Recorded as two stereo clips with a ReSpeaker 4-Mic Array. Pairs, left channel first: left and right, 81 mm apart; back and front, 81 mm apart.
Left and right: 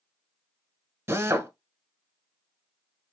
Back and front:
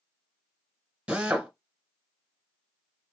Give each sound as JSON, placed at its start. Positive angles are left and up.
{"t": 1.1, "sound": "a drill", "azimuth_deg": -70, "distance_m": 0.9}